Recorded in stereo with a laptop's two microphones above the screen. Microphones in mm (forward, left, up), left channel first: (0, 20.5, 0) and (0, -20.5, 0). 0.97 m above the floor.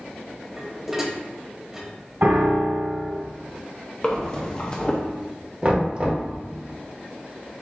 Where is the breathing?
25° left (ahead or behind), 0.5 m.